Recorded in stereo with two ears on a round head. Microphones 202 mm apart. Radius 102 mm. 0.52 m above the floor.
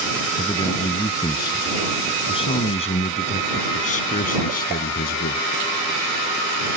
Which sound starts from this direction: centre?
A man speaking, at 0.4 s.